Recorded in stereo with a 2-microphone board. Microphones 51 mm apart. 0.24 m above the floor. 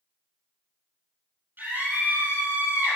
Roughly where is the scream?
Right.